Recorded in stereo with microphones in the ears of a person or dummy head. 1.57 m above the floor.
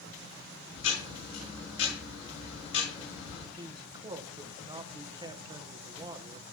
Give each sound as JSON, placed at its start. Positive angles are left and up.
{"t": 0.8, "sound": "ticking", "side_deg": 70, "distance_m": 5.5}
{"t": 3.6, "sound": "a man speaking", "side_deg": -25, "distance_m": 1.1}